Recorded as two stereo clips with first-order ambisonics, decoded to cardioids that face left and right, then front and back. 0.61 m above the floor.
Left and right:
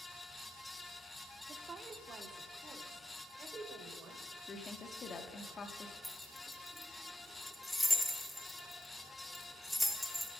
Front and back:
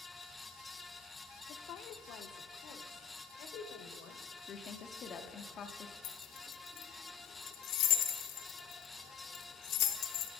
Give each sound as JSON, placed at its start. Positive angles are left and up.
{"t": 1.5, "sound": "a woman speaking", "azimuth_deg": -30, "distance_m": 0.9}
{"t": 4.5, "sound": "a woman speaking", "azimuth_deg": 40, "distance_m": 1.0}
{"t": 6.0, "sound": "keys jangling", "azimuth_deg": 5, "distance_m": 1.0}